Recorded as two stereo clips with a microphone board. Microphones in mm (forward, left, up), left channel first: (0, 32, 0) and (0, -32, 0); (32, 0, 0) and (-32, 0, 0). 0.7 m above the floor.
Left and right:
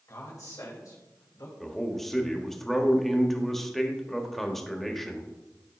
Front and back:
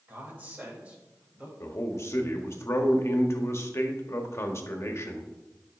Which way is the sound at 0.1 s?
125° left.